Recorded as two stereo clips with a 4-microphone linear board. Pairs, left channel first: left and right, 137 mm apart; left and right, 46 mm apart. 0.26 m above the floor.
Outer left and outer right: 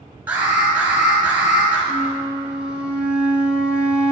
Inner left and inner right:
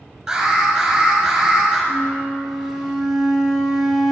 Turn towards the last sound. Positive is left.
turn(degrees=-10)  # may be behind; listen again after turning